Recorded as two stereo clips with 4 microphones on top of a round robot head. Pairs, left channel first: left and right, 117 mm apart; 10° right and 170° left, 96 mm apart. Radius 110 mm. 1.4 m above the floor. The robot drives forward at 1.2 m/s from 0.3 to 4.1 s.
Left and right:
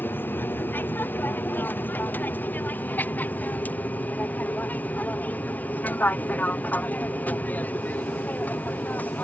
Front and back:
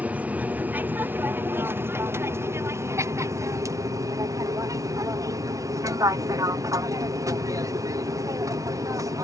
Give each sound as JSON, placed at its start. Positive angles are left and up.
{"t": 0.0, "sound": "an aircraft", "azimuth_deg": 130}